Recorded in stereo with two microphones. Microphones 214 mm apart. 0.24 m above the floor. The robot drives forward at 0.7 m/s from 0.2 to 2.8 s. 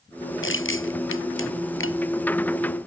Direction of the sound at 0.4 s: 70° left (ahead or behind).